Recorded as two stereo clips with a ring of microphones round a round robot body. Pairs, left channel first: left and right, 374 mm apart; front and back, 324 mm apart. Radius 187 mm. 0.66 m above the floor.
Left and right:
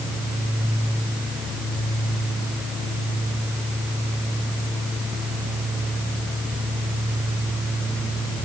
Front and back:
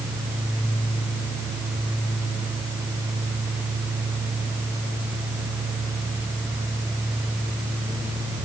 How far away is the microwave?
I don't hear a microwave.